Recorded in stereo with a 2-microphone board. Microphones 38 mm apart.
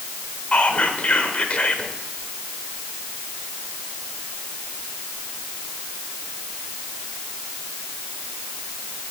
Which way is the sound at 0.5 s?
40° left (ahead or behind).